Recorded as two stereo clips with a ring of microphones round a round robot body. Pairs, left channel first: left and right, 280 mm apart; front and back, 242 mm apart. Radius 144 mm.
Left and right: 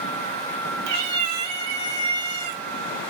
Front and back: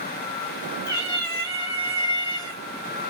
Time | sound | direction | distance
0.9 | a cat meowing | 70° right | 0.9 m